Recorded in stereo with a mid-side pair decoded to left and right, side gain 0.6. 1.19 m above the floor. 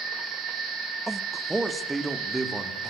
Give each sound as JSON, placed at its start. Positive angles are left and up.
{"t": 1.1, "sound": "a man speaking", "azimuth_deg": -10, "distance_m": 1.3}